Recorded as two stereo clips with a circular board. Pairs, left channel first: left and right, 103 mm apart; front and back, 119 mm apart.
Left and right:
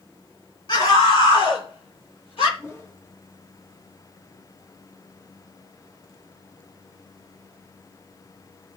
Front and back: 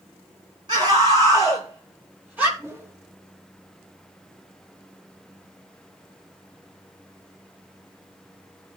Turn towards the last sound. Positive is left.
turn(degrees=130)